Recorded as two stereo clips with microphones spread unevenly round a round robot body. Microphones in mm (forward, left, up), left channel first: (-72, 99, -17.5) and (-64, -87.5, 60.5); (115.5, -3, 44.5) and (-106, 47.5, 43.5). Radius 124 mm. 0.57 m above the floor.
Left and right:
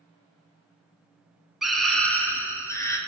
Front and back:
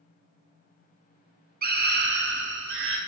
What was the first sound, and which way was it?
A scream, 155° left.